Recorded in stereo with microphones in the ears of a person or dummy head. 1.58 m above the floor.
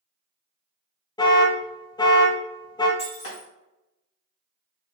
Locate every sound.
1.2 s an alarm: 20° left (ahead or behind), 0.5 m
3.0 s breaking glass: 40° left (ahead or behind), 1.4 m